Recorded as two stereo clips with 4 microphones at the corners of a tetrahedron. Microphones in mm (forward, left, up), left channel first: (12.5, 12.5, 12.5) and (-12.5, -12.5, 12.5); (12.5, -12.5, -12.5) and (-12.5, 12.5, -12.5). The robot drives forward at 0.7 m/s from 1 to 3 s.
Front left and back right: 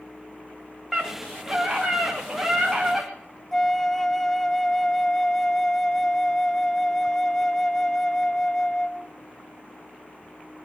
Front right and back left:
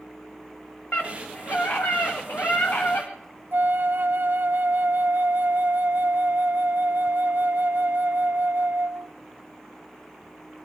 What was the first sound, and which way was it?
A scream, 40° right.